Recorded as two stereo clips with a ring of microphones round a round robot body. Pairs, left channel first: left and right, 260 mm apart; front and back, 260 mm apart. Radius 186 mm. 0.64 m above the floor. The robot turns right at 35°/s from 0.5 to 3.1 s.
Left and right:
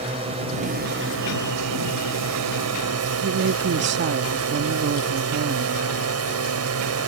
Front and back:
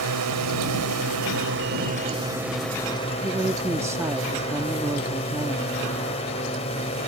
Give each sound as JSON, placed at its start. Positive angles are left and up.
{"t": 0.0, "sound": "a drone", "azimuth_deg": -165}
{"t": 3.2, "sound": "a woman speaking", "azimuth_deg": -105}